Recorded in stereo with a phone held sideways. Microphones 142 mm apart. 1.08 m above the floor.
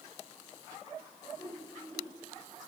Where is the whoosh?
25° left (ahead or behind), 5.5 m.